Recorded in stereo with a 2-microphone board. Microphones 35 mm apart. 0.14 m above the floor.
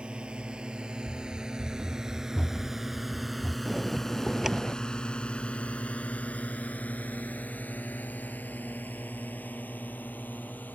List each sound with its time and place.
0.0 s a drone: 30° right (ahead or behind); by 10.8 s 60° left (ahead or behind)
1.1 s running footsteps: 35° right (ahead or behind); by 3.5 s 50° left (ahead or behind)
3.6 s a bell: 10° right (ahead or behind)